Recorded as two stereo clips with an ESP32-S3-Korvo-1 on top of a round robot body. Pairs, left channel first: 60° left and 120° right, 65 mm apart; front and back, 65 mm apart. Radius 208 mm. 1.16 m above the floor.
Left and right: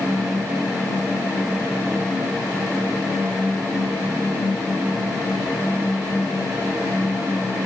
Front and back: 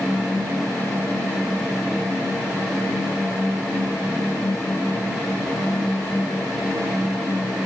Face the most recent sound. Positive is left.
No sound to turn to.